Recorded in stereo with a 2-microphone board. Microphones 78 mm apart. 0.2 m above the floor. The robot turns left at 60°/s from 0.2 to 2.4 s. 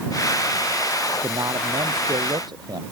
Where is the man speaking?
45° right; by 2.8 s 115° right.